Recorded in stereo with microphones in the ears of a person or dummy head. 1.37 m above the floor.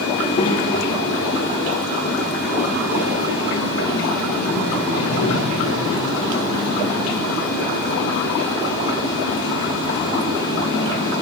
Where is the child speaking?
30° left (ahead or behind), 2 m; by 11.2 s 70° left (ahead or behind), 5.5 m.